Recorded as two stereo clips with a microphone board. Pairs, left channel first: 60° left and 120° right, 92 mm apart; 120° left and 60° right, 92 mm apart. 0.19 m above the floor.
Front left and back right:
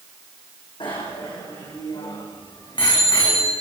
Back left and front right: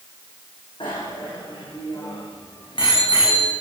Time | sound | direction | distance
0.8 | a bicycle bell | 90° left | 7.5 m